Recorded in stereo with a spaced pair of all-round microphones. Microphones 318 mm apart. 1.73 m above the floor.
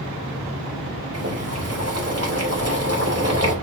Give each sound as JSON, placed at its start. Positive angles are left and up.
{"t": 1.1, "sound": "boiling", "side_deg": -50, "distance_m": 2.5}